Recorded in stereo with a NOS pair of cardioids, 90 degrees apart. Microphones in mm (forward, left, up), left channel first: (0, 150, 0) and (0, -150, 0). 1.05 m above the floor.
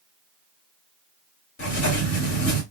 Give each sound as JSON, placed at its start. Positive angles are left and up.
{"t": 1.6, "sound": "writing", "azimuth_deg": 60, "distance_m": 2.5}